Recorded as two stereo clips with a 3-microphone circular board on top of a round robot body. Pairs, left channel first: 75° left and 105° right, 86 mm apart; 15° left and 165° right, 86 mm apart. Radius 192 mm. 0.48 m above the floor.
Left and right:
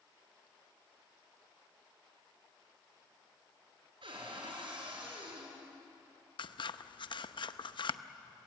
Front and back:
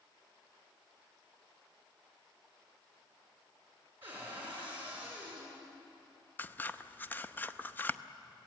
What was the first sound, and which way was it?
A cupboard door, 100° right.